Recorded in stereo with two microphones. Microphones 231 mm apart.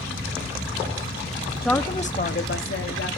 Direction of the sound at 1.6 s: Centre (ahead or behind).